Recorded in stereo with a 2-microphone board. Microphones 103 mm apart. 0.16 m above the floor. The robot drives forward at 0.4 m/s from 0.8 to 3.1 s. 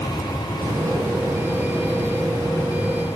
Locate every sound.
0.6 s a hiss: 30° right (ahead or behind), 6 m; by 3.0 s 25° right (ahead or behind), 7 m